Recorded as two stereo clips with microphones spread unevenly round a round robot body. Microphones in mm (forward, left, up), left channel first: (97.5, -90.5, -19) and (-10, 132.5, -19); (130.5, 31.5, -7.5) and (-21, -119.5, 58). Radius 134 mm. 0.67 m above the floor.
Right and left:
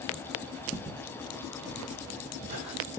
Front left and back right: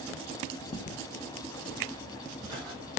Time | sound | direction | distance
0.7 | footsteps | 15° right | 0.7 m